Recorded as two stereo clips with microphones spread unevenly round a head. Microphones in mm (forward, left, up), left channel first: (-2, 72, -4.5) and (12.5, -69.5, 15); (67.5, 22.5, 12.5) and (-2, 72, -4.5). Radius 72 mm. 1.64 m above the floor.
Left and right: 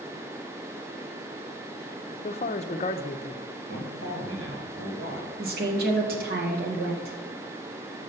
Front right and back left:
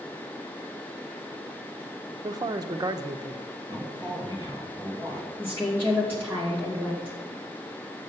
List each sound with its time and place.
2.2 s a man speaking: 120° left, 0.6 m
3.7 s a man speaking: 105° right, 2 m
5.4 s a woman speaking: 110° right, 2 m